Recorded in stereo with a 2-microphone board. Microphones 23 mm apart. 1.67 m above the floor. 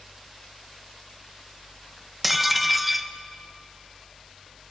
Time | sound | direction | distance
2.2 | dishes clattering | 5° right (ahead or behind) | 0.9 m